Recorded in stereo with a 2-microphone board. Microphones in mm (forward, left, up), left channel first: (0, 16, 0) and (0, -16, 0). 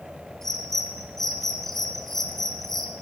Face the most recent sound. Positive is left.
turn(degrees=10)  # may be behind; listen again after turning